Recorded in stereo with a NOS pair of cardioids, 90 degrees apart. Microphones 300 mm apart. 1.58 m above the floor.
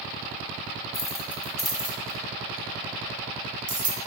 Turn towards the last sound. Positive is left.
turn(degrees=-45)